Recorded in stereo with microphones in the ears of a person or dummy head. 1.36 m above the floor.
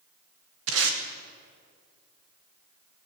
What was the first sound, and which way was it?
Tape being pulled, 65° right (ahead or behind).